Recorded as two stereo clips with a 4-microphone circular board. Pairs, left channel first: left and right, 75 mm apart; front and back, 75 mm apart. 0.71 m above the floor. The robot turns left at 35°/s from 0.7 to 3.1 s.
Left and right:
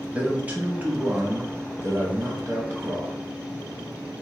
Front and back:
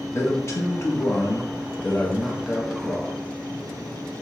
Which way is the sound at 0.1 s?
30° right.